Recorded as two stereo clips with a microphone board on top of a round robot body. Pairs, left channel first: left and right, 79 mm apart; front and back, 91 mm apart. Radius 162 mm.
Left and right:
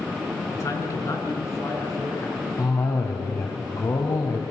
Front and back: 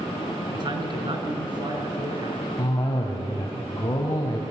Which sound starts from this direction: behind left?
A man speaking, at 0.5 s.